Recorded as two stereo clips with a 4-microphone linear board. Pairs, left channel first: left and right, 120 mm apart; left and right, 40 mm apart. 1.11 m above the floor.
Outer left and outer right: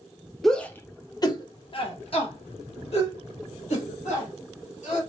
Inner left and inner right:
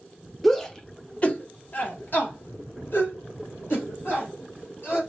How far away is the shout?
About 0.6 m.